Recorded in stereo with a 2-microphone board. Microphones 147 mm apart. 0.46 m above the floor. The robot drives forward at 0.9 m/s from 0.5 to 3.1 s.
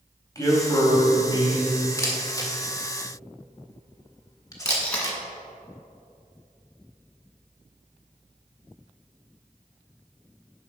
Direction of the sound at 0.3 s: 25° left (ahead or behind).